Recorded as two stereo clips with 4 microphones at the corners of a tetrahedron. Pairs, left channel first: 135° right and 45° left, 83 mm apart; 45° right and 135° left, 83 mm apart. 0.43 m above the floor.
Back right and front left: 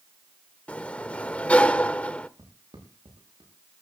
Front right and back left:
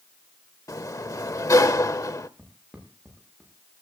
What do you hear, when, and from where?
0.7 s a sliding door: 65° right, 0.8 m
2.4 s footsteps: 55° left, 8 m; by 3.5 s 50° left, 8 m